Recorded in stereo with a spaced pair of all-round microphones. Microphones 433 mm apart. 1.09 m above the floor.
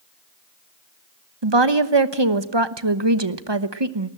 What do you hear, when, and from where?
1.4 s a woman speaking: 65° right (ahead or behind), 1.2 m